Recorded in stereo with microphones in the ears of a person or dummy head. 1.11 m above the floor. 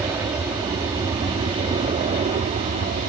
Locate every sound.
0.0 s an aircraft: 15° right (ahead or behind); by 3.1 s 35° right (ahead or behind)